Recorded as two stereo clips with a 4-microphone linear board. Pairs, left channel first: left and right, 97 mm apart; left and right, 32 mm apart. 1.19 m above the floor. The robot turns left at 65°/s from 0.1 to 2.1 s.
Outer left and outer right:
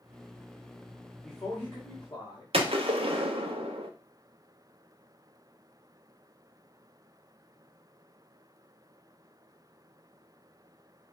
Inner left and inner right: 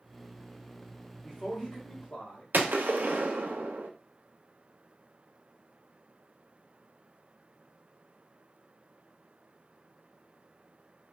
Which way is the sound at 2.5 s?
85° right.